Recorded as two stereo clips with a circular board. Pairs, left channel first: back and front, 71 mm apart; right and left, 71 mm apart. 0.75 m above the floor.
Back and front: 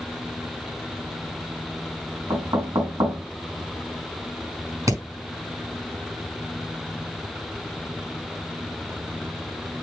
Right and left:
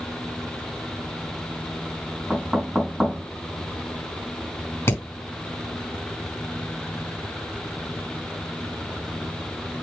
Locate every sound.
2.3 s knocking: 5° left, 5 m
4.9 s hammering: 35° right, 5 m